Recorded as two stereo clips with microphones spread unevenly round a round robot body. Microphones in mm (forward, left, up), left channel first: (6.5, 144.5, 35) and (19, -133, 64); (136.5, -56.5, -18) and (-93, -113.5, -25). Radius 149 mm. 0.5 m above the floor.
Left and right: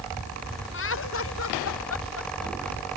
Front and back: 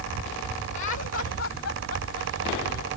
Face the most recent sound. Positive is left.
turn(degrees=60)